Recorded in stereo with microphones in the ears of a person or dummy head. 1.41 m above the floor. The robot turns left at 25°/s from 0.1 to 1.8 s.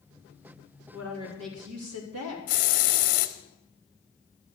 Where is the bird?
No bird in this recording.